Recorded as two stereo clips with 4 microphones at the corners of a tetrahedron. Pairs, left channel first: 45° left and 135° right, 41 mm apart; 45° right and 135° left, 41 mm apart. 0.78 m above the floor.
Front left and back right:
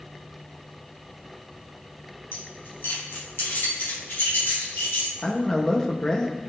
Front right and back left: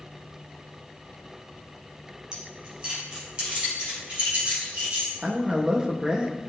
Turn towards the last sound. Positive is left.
turn(degrees=95)